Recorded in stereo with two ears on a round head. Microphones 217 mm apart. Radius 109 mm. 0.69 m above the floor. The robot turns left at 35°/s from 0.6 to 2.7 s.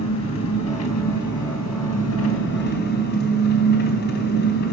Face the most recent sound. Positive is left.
turn(degrees=45)